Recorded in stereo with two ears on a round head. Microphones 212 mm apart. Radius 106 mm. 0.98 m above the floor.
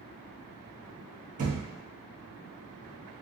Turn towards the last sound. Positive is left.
turn(degrees=-35)  # may be behind; listen again after turning